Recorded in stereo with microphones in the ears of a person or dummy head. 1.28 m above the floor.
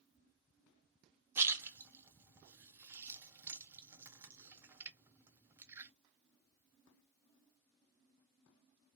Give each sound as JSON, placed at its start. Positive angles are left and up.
{"t": 1.4, "sound": "a splash", "side_deg": -15, "distance_m": 0.6}